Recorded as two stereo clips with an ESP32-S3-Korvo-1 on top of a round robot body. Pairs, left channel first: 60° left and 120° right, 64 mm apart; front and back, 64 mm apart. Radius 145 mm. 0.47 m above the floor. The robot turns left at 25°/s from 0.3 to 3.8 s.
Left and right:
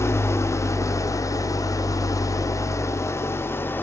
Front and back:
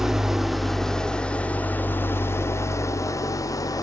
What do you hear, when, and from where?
0.0 s an engine running: 95° left, 1.3 m; by 3.8 s 5° left, 1.3 m